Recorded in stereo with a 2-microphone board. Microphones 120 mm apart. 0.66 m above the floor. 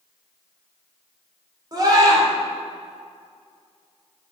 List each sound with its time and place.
1.7 s a scream: 35° right (ahead or behind), 2.5 m